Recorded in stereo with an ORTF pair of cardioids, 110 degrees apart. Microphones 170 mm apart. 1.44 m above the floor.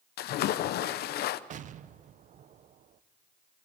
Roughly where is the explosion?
Ahead right.